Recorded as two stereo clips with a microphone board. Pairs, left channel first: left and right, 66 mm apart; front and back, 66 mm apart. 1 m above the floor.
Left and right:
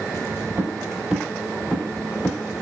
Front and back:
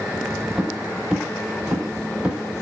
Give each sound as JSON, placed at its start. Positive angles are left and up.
{"t": 0.6, "sound": "footsteps", "azimuth_deg": -105, "distance_m": 1.1}